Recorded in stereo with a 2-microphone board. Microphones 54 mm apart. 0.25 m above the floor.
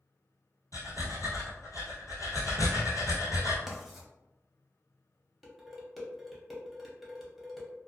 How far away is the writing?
About 0.6 m.